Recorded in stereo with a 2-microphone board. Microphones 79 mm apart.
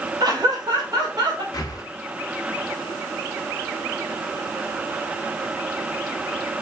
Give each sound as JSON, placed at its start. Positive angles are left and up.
{"t": 0.2, "sound": "laughter", "side_deg": -50, "distance_m": 0.8}
{"t": 1.5, "sound": "breathing", "side_deg": 50, "distance_m": 0.7}